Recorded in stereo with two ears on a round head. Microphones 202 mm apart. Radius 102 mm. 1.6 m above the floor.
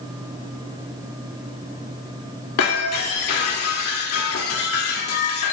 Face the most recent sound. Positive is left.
turn(degrees=75)  # may be behind; listen again after turning